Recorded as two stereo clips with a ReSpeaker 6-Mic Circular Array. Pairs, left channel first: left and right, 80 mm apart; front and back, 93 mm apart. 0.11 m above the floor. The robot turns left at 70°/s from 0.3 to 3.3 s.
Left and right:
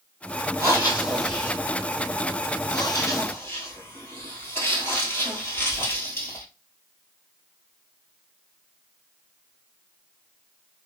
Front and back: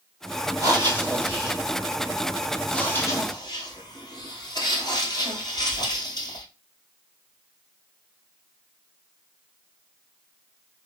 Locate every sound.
0.6 s breathing: 135° right, 1.5 m; by 6.5 s 35° left, 1.5 m